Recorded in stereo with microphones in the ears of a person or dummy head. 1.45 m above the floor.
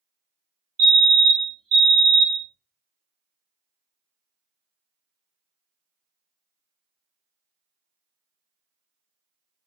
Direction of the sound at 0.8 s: 60° right (ahead or behind).